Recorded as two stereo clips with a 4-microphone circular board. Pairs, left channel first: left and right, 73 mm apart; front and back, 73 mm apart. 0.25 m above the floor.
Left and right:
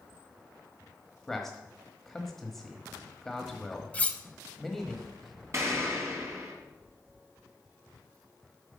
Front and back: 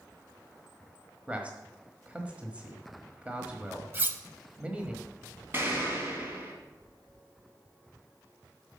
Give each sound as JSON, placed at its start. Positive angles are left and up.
{"t": 1.3, "sound": "a man speaking", "azimuth_deg": 170, "distance_m": 1.2}
{"t": 3.9, "sound": "cutlery clinking", "azimuth_deg": 150, "distance_m": 0.8}
{"t": 5.5, "sound": "an explosion", "azimuth_deg": -130, "distance_m": 2.5}